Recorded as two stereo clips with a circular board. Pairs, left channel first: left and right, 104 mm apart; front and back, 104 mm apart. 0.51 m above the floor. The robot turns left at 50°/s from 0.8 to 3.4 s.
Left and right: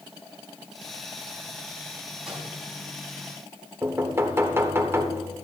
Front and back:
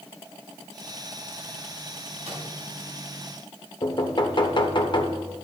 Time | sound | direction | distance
2.2 | a microwave | 175° right | 4 m
3.8 | knocking | 30° right | 1.1 m